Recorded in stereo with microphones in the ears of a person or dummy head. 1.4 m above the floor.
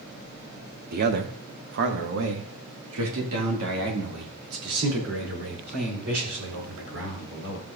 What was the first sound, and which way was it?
A man speaking, 55° right (ahead or behind).